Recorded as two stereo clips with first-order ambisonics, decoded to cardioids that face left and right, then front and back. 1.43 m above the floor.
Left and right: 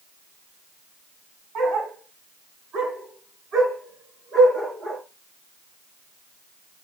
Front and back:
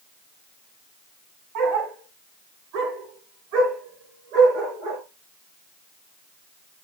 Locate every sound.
1.6 s a dog barking: 150° right, 3.5 m; by 5.0 s 155° right, 6.5 m